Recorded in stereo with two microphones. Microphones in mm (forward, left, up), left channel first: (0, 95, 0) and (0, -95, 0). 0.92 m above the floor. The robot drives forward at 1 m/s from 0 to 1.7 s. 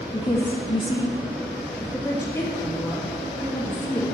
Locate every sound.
0.1 s a woman speaking: 25° left (ahead or behind), 0.8 m; by 4.1 s 15° left (ahead or behind), 1.3 m